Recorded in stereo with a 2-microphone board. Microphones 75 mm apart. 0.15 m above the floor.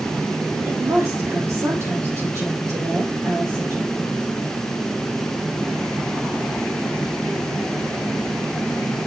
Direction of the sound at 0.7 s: 45° right (ahead or behind).